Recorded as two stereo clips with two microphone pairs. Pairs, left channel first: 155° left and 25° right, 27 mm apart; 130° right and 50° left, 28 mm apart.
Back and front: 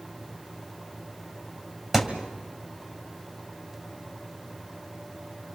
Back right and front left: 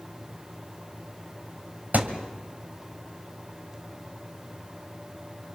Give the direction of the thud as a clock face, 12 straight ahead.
10 o'clock.